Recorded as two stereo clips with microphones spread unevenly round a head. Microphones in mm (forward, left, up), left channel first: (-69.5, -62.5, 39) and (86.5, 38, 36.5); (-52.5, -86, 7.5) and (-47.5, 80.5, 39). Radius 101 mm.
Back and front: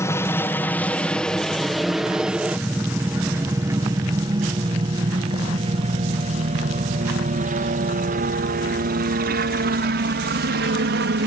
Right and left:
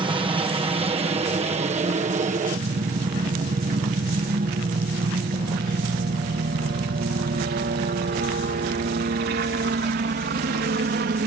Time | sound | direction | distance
0.0 | a helicopter | 145° left | ?